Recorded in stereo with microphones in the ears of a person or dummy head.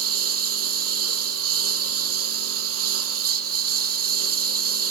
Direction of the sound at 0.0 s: 80° right.